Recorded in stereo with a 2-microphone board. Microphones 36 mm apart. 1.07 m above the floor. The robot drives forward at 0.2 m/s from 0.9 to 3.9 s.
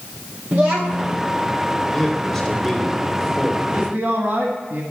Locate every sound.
0.5 s a child speaking: 65° right (ahead or behind), 0.9 m; by 1.2 s 70° right (ahead or behind), 0.9 m
1.9 s a man speaking: 5° left (ahead or behind), 3 m
3.6 s a man speaking: 60° right (ahead or behind), 1.4 m; by 4.8 s 65° right (ahead or behind), 1.4 m